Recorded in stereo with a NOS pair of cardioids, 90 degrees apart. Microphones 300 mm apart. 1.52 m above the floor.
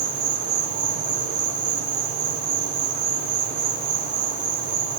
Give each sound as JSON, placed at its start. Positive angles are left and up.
{"t": 0.0, "sound": "an insect", "azimuth_deg": -70, "distance_m": 7.0}